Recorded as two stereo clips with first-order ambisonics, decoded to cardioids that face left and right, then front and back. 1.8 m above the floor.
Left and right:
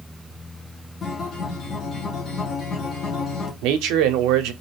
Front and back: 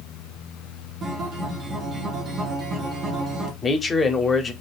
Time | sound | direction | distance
1.0 | a guitar | 135° left | 1.0 m
3.6 | a man speaking | 70° right | 0.6 m